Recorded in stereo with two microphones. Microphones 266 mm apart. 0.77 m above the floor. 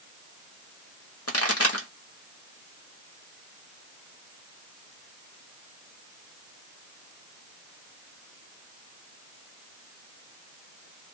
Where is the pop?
60° left (ahead or behind), 1.5 m.